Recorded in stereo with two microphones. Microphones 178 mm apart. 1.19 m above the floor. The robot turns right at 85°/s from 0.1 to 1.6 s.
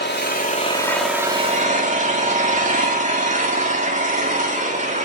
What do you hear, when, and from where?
0.0 s an engine running: 100° left, 2 m; by 5.0 s 135° right, 2 m